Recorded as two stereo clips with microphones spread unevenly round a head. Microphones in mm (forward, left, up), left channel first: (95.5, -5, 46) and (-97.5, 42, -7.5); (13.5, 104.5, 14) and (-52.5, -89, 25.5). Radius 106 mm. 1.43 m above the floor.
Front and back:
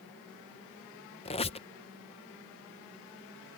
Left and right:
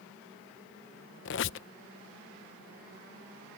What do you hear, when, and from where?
1.2 s a squeak: 35° left